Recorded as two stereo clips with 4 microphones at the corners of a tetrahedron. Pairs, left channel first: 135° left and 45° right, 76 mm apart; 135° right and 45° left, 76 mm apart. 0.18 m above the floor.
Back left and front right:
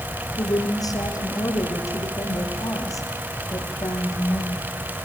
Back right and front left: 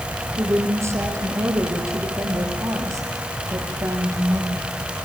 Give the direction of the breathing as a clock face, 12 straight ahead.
I don't hear breathing.